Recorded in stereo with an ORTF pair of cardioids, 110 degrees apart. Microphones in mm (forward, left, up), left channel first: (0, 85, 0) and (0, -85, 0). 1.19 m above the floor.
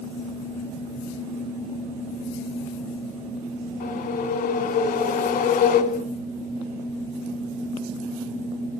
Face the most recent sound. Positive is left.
turn(degrees=65)